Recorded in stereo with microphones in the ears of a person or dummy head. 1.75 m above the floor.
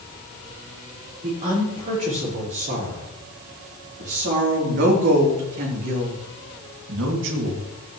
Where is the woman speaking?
40° right (ahead or behind), 5 m; by 7.6 s 75° right (ahead or behind), 2.5 m.